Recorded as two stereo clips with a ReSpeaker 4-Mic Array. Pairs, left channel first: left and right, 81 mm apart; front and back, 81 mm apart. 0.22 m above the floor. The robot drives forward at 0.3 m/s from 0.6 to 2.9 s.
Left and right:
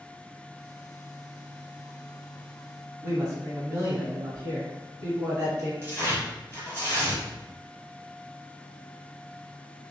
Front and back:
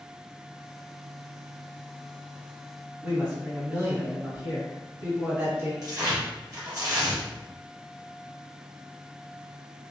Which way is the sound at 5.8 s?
145° left.